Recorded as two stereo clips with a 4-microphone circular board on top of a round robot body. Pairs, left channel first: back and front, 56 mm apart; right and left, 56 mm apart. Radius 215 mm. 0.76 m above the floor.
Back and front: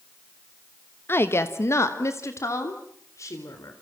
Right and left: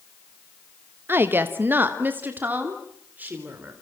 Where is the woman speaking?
135° left, 1.4 m; by 3.7 s 150° left, 4 m.